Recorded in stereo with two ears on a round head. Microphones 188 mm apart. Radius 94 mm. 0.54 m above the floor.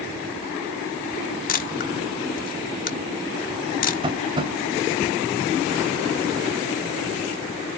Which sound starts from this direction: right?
Tapping, at 4.0 s.